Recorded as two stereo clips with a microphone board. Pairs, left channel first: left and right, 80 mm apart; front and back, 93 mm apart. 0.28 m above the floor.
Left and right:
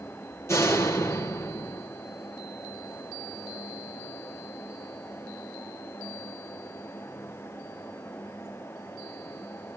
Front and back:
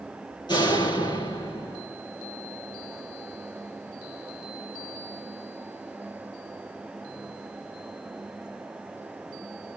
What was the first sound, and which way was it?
A door slam, 35° left.